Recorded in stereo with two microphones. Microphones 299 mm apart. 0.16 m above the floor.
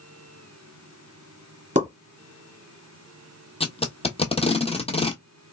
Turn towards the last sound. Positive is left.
turn(degrees=20)  # may be behind; listen again after turning